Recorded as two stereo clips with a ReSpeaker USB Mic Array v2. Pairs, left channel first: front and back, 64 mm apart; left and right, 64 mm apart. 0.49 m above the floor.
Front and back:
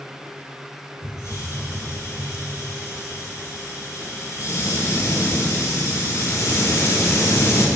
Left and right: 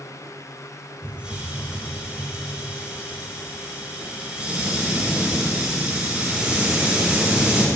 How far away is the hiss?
About 3 m.